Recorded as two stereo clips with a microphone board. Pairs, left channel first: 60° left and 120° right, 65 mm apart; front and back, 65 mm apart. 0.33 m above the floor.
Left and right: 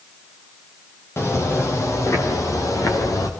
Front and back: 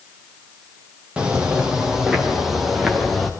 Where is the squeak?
No squeak in this recording.